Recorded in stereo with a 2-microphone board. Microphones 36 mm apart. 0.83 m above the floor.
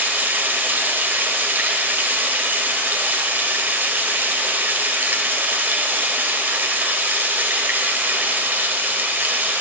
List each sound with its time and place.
0.0 s running water: 75° right (ahead or behind), 1.3 m